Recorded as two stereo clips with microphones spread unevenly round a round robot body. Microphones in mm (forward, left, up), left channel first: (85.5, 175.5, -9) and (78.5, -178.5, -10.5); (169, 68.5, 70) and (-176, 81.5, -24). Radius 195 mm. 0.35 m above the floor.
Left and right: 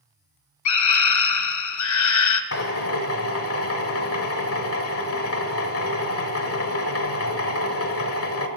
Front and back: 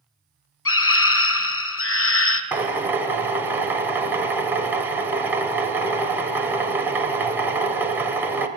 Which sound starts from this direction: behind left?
A drill, at 2.5 s.